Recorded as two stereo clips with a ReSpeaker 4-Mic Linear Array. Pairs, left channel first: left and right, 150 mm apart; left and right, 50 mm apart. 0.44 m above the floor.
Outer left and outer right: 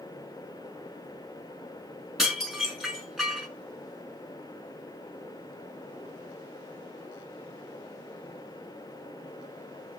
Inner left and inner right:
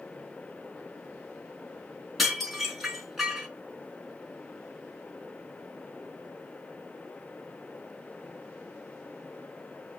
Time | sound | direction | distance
2.2 | dishes clattering | 5° right (ahead or behind) | 3.5 m